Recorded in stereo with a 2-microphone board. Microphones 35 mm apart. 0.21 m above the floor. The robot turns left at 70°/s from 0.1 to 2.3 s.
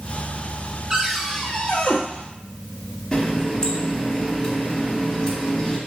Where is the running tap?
20° left (ahead or behind), 0.9 m.